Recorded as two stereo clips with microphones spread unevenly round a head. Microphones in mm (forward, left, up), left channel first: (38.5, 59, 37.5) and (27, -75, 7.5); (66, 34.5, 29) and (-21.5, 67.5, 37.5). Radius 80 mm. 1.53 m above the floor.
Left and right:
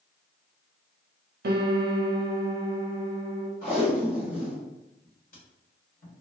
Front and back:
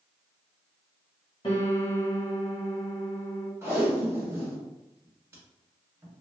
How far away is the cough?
I don't hear a cough.